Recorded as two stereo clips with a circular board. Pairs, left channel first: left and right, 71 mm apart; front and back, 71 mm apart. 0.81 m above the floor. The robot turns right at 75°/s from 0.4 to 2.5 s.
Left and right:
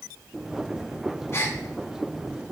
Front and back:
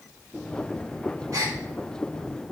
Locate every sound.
1.3 s a gasp: 140° left, 1.3 m; by 1.6 s 160° left, 1.3 m